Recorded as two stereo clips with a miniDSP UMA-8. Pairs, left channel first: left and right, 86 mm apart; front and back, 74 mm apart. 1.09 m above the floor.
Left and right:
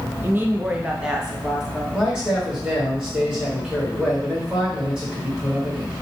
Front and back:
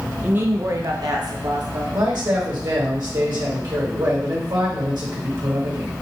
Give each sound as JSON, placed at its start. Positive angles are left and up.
{"t": 0.2, "sound": "a woman speaking", "azimuth_deg": -130, "distance_m": 0.5}
{"t": 1.9, "sound": "a man speaking", "azimuth_deg": -170, "distance_m": 2.0}